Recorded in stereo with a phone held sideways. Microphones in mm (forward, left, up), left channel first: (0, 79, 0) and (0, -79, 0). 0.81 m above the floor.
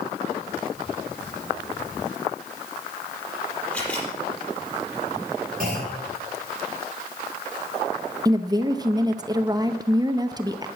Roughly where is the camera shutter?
Centre.